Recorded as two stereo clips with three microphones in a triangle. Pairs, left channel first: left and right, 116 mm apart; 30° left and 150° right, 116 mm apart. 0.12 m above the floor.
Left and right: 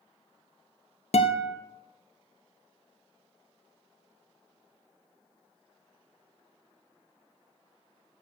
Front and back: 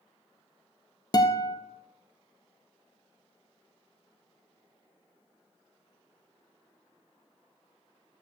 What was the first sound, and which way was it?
A guitar, 80° left.